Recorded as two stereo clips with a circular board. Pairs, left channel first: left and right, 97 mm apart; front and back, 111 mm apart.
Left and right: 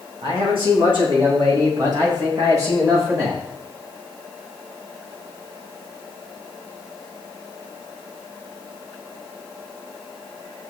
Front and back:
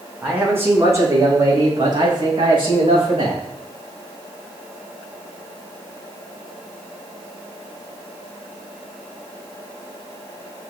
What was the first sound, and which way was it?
A man speaking, 105° right.